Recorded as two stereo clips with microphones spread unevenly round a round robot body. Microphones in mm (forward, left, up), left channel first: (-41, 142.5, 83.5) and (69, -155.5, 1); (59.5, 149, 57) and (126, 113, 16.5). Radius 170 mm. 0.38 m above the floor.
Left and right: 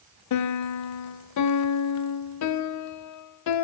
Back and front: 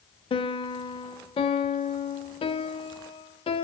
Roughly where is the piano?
Behind left.